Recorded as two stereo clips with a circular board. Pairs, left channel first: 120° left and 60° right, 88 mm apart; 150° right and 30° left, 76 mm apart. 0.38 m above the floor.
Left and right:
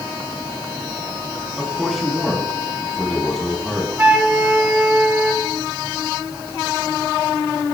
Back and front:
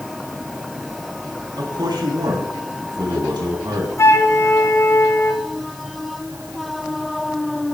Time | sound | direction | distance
1.6 | a man speaking | 30° left | 3.5 m
4.0 | a flute | 120° right | 1.5 m